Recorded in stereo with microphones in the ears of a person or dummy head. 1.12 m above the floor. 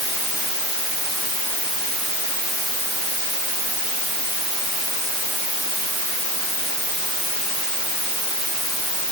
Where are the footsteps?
No footsteps in this recording.